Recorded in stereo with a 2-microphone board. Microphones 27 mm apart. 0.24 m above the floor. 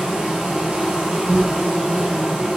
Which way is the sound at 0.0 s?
35° right (ahead or behind).